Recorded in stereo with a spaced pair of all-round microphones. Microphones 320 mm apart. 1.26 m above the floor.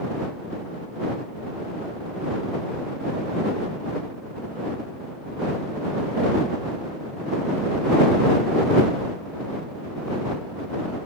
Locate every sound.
Only background noise.